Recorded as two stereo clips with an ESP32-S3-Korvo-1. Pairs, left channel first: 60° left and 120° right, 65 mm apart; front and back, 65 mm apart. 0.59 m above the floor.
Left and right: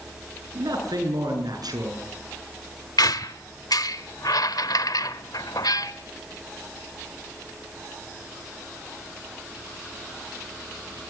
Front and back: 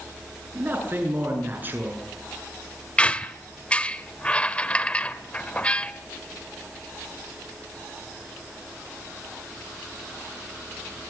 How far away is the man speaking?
About 7.5 m.